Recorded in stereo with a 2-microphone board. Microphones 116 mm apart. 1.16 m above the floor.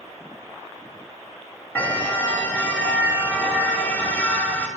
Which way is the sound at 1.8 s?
15° left (ahead or behind).